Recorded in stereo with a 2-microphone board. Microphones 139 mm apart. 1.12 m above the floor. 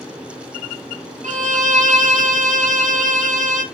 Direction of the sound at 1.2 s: 65° right (ahead or behind).